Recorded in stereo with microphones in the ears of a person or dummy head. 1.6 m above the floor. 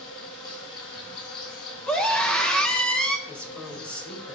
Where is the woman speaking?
5° left (ahead or behind), 1.7 m.